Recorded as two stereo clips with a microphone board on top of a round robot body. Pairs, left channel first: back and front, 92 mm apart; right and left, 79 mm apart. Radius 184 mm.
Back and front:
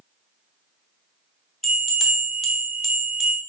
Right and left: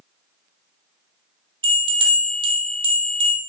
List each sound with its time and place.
1.6 s a bell: 90° left, 0.5 m